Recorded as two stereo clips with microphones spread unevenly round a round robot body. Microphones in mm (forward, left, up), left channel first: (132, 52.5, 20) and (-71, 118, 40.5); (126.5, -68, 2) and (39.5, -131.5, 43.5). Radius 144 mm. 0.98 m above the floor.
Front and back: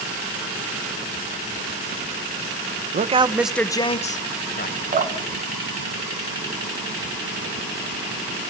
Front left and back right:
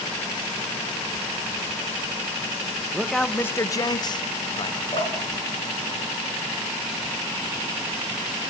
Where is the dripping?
115° left, 1.7 m.